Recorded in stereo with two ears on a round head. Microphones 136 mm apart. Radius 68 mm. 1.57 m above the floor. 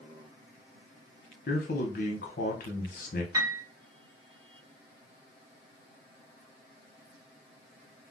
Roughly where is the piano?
Centre.